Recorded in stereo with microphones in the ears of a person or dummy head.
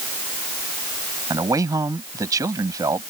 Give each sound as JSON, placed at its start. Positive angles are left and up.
{"t": 1.3, "sound": "a man speaking", "side_deg": -15}